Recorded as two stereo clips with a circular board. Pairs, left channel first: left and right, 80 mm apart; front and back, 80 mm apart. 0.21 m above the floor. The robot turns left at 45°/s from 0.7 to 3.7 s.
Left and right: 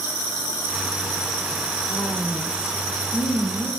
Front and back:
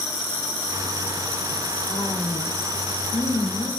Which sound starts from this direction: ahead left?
A woman speaking, at 1.9 s.